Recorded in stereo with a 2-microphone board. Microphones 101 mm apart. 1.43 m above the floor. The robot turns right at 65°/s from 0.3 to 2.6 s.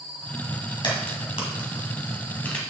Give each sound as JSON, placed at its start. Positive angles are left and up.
{"t": 0.8, "sound": "a crack", "side_deg": 50, "distance_m": 3.0}